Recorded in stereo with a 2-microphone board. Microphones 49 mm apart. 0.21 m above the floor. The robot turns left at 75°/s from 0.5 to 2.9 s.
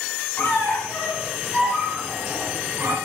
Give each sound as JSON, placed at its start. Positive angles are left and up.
{"t": 0.4, "sound": "a squeak", "azimuth_deg": 75, "distance_m": 0.9}